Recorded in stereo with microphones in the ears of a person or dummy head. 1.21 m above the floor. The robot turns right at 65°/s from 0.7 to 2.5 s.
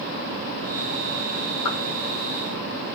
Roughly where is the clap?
Left.